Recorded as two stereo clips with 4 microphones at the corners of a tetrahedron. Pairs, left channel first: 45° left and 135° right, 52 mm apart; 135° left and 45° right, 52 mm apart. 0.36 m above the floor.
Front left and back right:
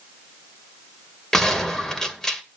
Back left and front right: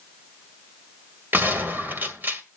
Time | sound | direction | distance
1.3 | a gunshot | 30° right | 1.9 m